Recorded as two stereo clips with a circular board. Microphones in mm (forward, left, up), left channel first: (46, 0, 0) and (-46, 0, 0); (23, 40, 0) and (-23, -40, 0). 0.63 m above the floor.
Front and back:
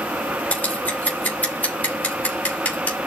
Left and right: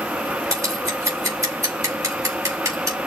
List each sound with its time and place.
0.5 s scissors: 75° right, 3 m